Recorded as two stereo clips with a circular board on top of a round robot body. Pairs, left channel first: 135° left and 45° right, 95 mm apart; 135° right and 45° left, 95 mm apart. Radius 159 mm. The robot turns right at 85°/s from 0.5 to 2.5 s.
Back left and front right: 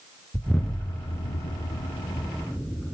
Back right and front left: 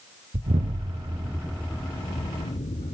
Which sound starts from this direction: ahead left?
An explosion, at 0.3 s.